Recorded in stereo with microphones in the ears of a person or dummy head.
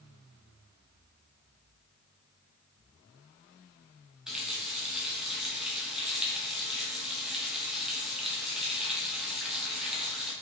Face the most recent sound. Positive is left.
turn(degrees=-5)  # may be behind; listen again after turning